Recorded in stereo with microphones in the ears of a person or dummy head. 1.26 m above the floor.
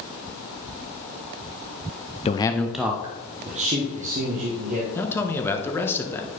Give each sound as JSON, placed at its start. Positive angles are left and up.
{"t": 2.2, "sound": "a man speaking", "side_deg": 20, "distance_m": 0.6}
{"t": 5.0, "sound": "a man speaking", "side_deg": 10, "distance_m": 1.3}